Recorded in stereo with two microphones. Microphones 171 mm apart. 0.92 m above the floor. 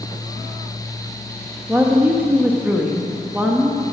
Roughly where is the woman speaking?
Centre.